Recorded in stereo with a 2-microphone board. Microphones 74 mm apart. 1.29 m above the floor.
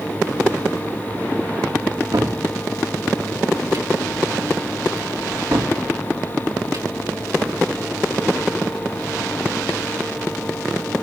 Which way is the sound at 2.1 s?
65° right (ahead or behind).